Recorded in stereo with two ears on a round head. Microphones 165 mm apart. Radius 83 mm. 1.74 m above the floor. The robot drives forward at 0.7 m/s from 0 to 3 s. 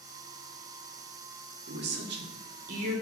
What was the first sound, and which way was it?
A woman speaking, 55° right (ahead or behind).